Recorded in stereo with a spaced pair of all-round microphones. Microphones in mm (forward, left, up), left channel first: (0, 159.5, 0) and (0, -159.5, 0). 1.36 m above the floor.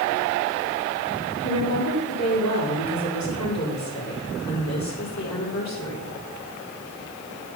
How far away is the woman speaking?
About 4.5 m.